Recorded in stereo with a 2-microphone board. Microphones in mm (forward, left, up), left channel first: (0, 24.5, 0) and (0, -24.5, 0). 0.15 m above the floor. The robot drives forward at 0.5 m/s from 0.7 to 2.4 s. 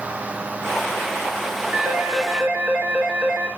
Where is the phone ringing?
40° right (ahead or behind), 1.2 m; by 3.5 s 35° right (ahead or behind), 1.4 m.